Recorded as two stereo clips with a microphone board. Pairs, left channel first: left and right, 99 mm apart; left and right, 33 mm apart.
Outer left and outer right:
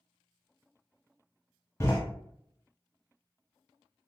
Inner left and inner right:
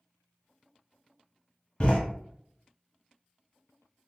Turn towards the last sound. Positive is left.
turn(degrees=25)  # may be behind; listen again after turning